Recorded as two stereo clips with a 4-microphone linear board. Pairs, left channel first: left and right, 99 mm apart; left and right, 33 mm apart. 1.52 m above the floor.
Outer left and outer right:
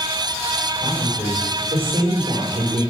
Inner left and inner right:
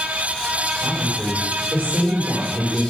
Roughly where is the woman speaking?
Right.